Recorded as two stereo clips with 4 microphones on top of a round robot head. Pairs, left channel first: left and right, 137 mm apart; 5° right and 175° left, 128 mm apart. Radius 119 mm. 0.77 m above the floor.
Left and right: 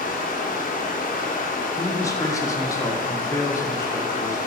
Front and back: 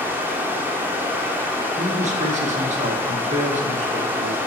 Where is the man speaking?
155° left, 1.8 m.